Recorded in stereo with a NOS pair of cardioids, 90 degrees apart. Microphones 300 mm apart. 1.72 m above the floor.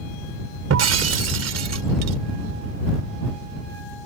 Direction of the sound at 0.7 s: 60° right.